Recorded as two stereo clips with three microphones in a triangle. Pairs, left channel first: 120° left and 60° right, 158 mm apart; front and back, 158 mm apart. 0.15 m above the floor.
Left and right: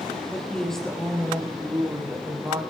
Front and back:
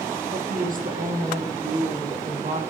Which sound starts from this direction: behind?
A woman speaking, at 0.3 s.